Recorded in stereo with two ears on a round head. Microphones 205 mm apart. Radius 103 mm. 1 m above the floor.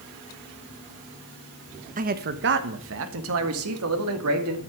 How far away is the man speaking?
About 0.9 m.